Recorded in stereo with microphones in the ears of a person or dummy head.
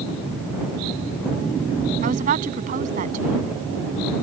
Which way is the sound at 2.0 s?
40° right (ahead or behind).